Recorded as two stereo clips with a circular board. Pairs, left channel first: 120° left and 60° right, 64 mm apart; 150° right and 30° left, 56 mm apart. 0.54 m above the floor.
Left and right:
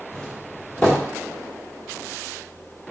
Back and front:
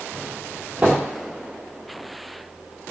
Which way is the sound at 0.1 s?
60° left.